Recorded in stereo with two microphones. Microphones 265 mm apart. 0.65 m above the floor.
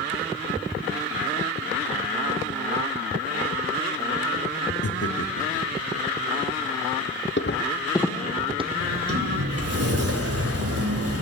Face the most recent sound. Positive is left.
turn(degrees=-60)  # may be behind; listen again after turning